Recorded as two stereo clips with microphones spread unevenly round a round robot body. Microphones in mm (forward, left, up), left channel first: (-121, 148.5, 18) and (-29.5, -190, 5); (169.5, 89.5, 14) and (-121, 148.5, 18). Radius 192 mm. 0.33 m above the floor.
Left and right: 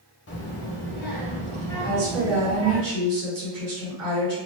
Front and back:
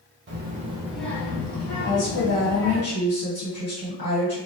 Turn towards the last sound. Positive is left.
turn(degrees=-50)